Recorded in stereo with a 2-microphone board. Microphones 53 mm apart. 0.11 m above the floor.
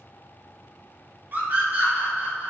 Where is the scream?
35° right (ahead or behind), 2 m; by 2.5 s 30° right (ahead or behind), 2.5 m.